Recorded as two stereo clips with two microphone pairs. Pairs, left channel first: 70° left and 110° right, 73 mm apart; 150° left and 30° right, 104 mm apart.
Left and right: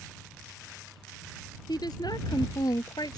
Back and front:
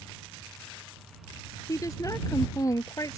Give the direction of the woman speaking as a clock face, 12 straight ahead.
9 o'clock.